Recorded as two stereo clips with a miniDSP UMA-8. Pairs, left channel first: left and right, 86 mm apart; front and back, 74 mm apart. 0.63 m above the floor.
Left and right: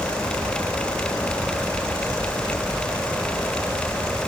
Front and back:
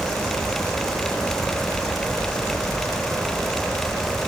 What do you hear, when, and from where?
Only background noise.